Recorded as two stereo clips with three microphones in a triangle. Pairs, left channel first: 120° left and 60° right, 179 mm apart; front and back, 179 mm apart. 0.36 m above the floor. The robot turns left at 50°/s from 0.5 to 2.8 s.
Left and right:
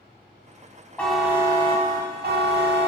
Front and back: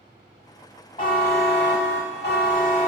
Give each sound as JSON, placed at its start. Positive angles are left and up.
{"t": 1.0, "sound": "a buzzer", "azimuth_deg": 40, "distance_m": 0.5}